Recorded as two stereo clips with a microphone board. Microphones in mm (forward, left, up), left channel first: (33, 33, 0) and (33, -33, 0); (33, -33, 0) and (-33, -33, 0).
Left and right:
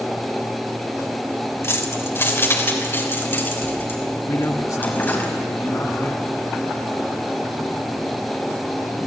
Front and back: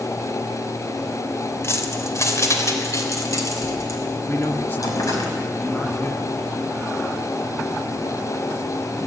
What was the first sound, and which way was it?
Keys jangling, 45° left.